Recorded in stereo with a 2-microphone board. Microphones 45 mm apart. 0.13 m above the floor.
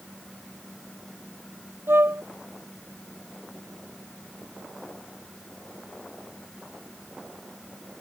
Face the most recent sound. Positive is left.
turn(degrees=-60)  # may be behind; listen again after turning